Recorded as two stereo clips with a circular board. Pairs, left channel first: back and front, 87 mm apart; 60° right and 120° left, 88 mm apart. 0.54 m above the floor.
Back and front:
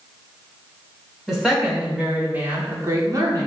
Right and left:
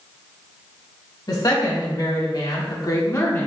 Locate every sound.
1.3 s a woman speaking: 85° right, 1.7 m; by 3.5 s 5° right, 1.0 m